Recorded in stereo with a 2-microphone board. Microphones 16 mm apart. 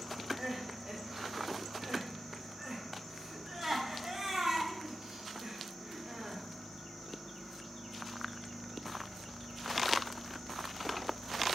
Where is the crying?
40° right (ahead or behind), 2 m.